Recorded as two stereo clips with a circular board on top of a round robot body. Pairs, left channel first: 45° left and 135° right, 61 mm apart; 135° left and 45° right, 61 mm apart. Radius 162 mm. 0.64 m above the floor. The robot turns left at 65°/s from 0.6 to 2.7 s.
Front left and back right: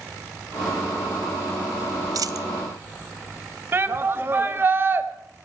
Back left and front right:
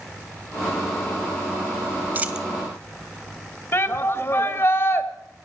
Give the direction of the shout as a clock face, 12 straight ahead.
6 o'clock.